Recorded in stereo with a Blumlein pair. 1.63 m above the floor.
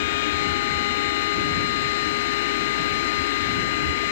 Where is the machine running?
50° left.